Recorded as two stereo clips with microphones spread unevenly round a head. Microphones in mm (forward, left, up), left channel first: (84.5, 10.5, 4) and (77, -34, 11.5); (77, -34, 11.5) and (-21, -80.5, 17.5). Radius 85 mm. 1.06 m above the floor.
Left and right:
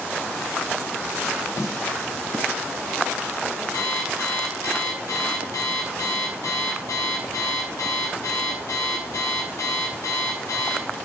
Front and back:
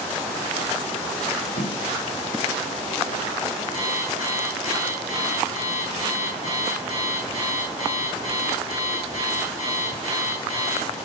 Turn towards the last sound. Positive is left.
turn(degrees=85)